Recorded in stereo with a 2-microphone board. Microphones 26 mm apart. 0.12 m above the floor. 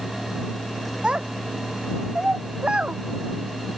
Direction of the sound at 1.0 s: 35° right (ahead or behind).